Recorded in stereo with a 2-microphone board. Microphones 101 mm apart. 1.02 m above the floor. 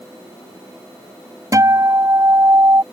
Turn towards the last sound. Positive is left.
turn(degrees=-35)  # may be behind; listen again after turning